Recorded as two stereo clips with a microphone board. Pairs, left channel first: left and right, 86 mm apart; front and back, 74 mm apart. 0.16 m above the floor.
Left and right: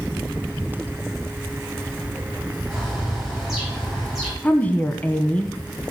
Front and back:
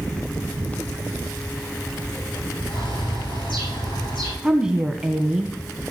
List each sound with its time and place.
2.7 s a bird: straight ahead, 9 m
4.4 s a woman speaking: 120° left, 1.2 m